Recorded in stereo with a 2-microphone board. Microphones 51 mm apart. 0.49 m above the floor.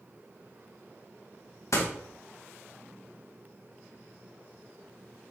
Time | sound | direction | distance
1.7 | a door slam | 70° left (ahead or behind) | 2.0 m